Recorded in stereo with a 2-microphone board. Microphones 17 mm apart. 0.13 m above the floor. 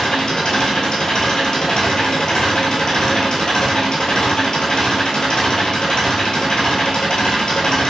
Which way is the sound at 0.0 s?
55° left (ahead or behind).